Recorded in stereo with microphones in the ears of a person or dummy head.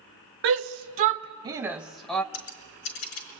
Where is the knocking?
No knocking in this recording.